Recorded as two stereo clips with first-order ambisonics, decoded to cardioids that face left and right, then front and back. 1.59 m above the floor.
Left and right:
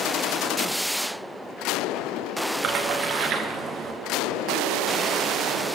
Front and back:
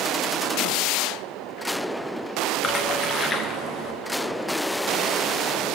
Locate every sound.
2.6 s a splash: 65° right, 0.8 m